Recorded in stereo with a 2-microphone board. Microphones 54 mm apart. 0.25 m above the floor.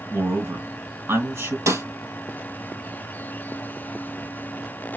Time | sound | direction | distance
0.1 | a man speaking | 50° right (ahead or behind) | 3 m
1.7 | a snare drum | 70° right (ahead or behind) | 4 m